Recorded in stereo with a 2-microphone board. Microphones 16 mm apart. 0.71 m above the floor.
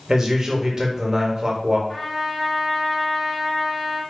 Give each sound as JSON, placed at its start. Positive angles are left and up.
{"t": 0.1, "sound": "a man speaking", "side_deg": -35, "distance_m": 0.8}
{"t": 1.9, "sound": "a trumpet", "side_deg": 50, "distance_m": 1.8}